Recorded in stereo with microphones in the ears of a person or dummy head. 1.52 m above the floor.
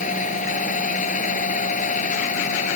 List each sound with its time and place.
0.0 s a machine running: 45° left (ahead or behind)